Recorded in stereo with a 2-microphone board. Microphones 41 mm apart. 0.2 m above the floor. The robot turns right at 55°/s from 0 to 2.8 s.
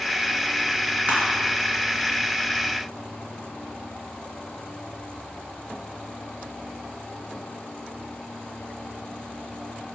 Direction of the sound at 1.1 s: 35° right (ahead or behind).